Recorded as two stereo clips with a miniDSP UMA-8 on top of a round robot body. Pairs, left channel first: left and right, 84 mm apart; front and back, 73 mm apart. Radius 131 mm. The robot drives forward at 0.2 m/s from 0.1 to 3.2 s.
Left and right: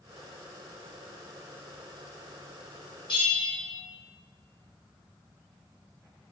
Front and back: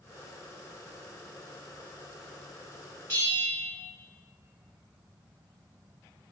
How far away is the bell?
About 1.4 m.